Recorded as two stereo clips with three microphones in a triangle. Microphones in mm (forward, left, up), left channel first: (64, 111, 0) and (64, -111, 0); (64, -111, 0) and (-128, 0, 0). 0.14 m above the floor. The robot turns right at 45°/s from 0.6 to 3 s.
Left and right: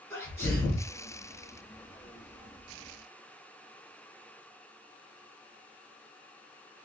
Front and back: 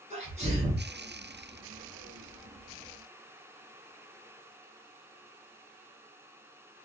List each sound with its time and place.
0.1 s a sneeze: 155° left, 1.5 m; by 0.9 s 170° left, 1.5 m